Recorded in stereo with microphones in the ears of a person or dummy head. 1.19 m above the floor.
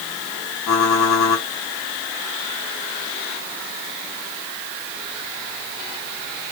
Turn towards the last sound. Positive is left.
turn(degrees=85)